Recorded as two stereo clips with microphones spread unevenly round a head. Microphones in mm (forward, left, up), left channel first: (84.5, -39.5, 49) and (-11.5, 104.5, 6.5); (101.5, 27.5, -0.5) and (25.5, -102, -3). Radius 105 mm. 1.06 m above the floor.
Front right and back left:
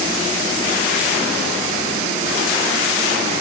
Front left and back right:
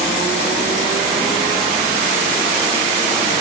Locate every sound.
Only background noise.